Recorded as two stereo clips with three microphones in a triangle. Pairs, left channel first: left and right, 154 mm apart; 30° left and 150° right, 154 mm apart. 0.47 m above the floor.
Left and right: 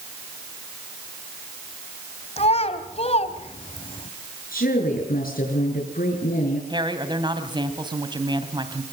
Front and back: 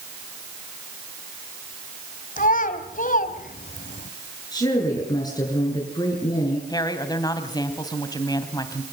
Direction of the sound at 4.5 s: 90° left.